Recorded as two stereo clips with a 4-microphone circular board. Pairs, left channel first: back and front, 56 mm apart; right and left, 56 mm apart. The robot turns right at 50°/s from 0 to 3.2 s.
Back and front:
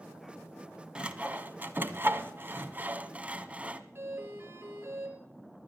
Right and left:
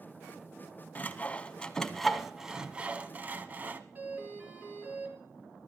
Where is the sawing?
60° right, 1.0 m; by 3.8 s 50° left, 1.0 m.